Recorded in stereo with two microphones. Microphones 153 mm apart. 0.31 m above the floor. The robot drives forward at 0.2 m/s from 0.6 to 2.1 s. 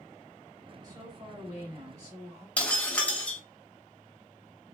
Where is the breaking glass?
10° left (ahead or behind), 0.8 m.